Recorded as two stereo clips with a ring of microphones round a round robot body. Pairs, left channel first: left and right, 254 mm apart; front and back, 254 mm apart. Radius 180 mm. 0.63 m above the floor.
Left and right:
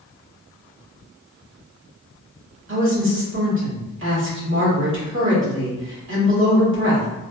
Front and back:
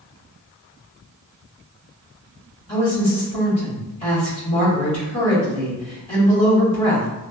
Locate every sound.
2.7 s a woman speaking: 70° right, 1.5 m